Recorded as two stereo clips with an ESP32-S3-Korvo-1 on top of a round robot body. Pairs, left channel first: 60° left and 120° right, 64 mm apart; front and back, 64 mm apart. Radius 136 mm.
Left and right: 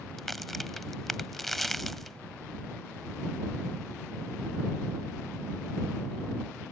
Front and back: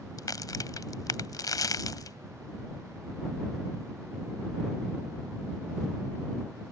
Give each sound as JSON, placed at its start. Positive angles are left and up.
{"t": 0.2, "sound": "a crack", "azimuth_deg": -30}